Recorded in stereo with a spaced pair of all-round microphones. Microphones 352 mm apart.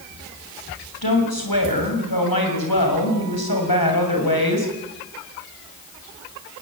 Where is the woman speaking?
80° left, 6.5 m.